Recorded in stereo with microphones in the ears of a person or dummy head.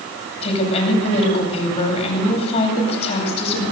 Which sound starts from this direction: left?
A woman speaking, at 0.4 s.